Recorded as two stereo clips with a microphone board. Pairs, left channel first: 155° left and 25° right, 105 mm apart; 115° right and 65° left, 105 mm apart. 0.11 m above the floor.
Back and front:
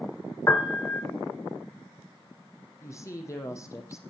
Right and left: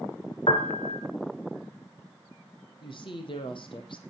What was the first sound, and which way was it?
A piano, 140° right.